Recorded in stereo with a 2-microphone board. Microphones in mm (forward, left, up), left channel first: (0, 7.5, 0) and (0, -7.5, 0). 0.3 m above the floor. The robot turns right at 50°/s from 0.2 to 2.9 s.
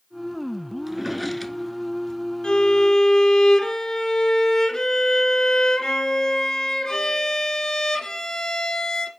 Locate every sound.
0.9 s a drawer: 20° right (ahead or behind), 0.9 m; by 2.2 s 45° left (ahead or behind), 0.9 m
2.4 s a violin: 75° left (ahead or behind), 1.6 m; by 9.1 s 55° left (ahead or behind), 1.6 m